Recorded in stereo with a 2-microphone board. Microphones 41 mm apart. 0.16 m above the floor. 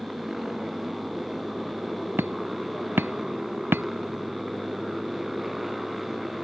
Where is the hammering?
70° right (ahead or behind).